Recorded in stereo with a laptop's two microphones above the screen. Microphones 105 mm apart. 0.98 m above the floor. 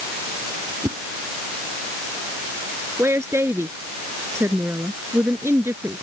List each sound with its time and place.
0.8 s a whoosh: 40° right (ahead or behind)
3.0 s a woman speaking: 25° right (ahead or behind)